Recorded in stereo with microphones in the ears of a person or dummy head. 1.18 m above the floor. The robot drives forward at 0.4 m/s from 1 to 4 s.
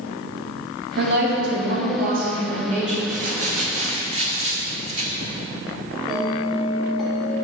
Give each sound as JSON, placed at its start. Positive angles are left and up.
{"t": 1.0, "sound": "a woman speaking", "side_deg": -60, "distance_m": 1.2}
{"t": 3.1, "sound": "crumpling", "side_deg": -45, "distance_m": 0.9}
{"t": 6.1, "sound": "a bell", "side_deg": 0, "distance_m": 1.2}